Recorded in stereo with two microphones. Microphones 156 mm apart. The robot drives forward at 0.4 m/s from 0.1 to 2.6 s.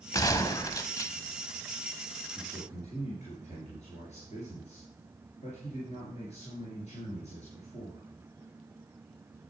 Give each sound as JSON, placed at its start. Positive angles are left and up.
{"t": 0.1, "sound": "a gunshot", "side_deg": 25, "distance_m": 0.8}
{"t": 2.4, "sound": "a man speaking", "side_deg": 50, "distance_m": 3.5}